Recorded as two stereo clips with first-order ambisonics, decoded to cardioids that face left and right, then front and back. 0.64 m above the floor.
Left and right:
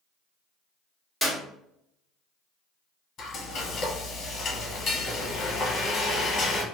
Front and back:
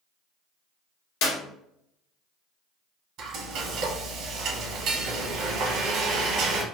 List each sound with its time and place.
1.2 s a clap: 5° right, 1.0 m
3.2 s frying: 145° left, 0.9 m